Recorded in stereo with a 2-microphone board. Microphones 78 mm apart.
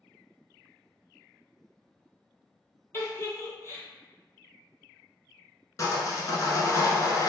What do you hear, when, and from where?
2.9 s a giggle: 35° left (ahead or behind), 0.7 m
5.8 s sawing: 45° left (ahead or behind), 0.6 m